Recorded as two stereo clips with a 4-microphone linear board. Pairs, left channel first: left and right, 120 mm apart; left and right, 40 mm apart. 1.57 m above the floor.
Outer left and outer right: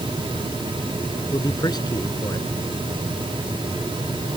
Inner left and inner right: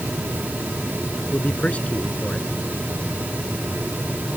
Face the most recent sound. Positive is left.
turn(degrees=35)  # may be behind; listen again after turning